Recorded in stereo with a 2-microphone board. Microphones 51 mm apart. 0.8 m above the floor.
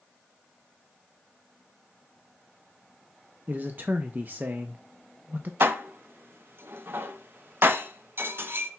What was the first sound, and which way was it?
A man speaking, 40° right (ahead or behind).